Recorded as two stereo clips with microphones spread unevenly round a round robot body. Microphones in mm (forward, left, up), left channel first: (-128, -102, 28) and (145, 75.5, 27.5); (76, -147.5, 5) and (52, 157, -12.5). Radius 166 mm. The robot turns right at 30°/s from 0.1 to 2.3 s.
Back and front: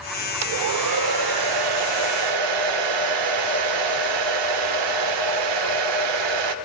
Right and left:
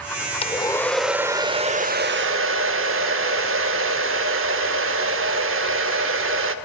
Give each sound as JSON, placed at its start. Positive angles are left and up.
{"t": 0.4, "sound": "a hair dryer", "azimuth_deg": -15, "distance_m": 0.5}